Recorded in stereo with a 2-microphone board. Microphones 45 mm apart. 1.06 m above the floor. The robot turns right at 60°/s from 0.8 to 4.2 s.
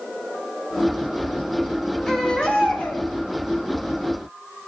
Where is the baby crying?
15° left, 4.5 m; by 3.0 s 70° left, 4.5 m.